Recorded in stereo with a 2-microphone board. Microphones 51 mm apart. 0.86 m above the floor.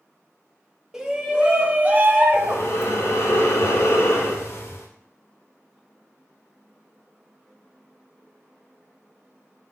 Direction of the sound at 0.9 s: 10° right (ahead or behind).